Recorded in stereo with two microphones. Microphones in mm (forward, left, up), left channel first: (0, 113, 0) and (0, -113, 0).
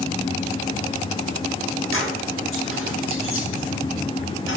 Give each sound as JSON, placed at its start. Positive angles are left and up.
{"t": 1.9, "sound": "keys jangling", "side_deg": 70, "distance_m": 3.0}